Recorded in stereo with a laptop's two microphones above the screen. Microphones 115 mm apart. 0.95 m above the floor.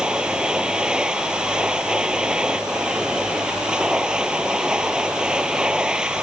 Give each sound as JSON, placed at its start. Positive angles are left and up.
{"t": 0.0, "sound": "a machine running", "side_deg": -5}